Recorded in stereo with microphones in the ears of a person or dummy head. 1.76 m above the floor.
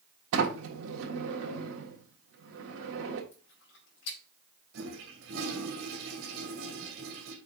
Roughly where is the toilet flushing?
Right.